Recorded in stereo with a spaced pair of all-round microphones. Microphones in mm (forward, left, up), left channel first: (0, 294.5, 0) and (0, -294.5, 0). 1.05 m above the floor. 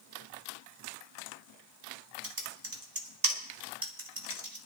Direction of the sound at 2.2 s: 35° right (ahead or behind).